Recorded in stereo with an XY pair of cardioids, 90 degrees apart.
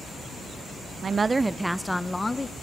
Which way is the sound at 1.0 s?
45° right.